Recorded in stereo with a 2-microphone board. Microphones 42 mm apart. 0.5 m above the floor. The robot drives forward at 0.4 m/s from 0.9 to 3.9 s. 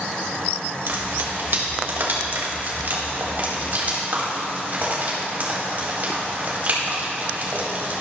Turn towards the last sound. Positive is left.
turn(degrees=-45)  # may be behind; listen again after turning